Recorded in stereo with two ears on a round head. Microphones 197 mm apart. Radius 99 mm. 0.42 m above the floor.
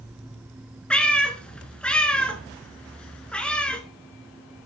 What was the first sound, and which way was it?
A cat meowing, 5° left (ahead or behind).